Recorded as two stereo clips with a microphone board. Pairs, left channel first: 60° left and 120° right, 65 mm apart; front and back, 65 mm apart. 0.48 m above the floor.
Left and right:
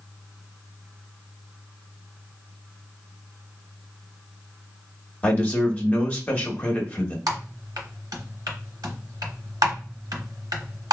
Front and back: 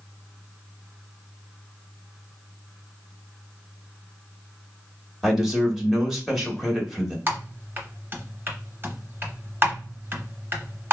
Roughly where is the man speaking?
Left.